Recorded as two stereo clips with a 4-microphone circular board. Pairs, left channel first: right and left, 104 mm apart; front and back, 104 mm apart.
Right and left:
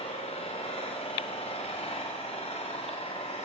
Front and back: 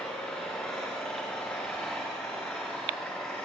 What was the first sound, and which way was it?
An engine running, 80° right.